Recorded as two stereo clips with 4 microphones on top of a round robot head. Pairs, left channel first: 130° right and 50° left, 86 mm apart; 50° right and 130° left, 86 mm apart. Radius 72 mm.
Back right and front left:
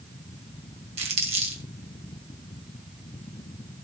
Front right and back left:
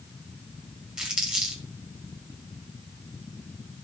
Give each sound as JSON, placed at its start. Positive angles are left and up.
{"t": 1.0, "sound": "crumpling", "azimuth_deg": 45, "distance_m": 2.5}